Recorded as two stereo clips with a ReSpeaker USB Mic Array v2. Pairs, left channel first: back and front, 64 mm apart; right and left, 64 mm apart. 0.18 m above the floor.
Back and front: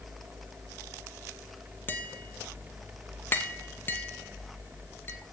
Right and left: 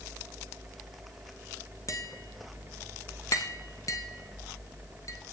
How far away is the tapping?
About 1.1 m.